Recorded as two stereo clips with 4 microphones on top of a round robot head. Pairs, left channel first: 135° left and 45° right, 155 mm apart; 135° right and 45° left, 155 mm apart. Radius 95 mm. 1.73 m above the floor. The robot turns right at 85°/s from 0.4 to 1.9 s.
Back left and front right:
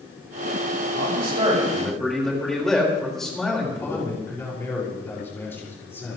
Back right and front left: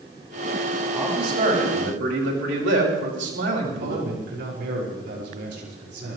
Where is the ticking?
No ticking in this recording.